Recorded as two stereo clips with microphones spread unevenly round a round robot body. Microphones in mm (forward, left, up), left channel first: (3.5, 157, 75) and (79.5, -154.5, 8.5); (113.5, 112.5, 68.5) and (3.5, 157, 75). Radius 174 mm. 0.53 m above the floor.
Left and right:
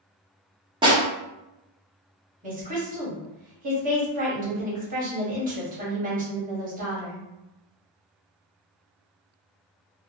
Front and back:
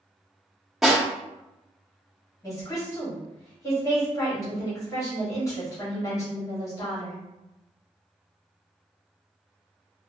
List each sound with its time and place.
0.8 s a snare drum: 110° right, 1.3 m
2.4 s a woman speaking: 60° right, 1.4 m